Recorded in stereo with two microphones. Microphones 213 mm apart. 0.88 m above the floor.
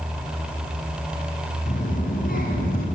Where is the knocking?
No knocking in this recording.